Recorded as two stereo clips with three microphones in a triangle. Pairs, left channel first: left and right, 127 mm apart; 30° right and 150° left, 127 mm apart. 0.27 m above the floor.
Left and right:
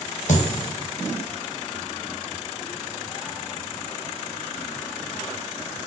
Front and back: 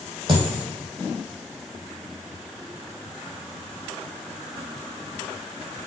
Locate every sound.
0.3 s a dropped coin: 105° left, 1.0 m